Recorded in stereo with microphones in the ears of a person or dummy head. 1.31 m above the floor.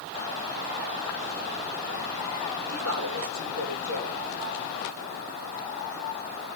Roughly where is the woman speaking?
Right.